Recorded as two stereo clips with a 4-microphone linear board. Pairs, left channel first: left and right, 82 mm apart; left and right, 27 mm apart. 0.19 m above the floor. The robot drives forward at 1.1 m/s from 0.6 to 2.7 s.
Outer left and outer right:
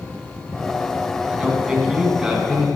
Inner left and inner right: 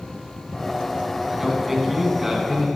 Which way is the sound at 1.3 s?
10° right (ahead or behind).